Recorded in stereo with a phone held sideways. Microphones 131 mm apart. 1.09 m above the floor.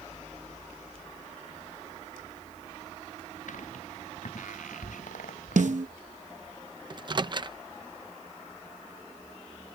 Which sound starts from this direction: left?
Footsteps, at 3.5 s.